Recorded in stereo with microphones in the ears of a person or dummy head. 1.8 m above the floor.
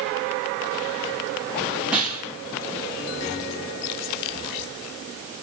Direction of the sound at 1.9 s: 10° right (ahead or behind).